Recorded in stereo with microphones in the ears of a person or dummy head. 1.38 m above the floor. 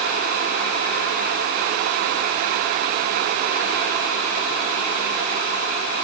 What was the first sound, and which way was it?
Only background noise.